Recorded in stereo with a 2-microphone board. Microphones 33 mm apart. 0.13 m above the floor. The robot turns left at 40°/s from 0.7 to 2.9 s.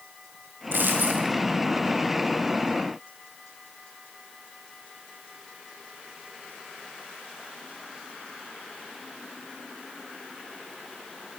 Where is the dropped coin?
70° right (ahead or behind), 7 m; by 1.3 s 45° right (ahead or behind), 7 m.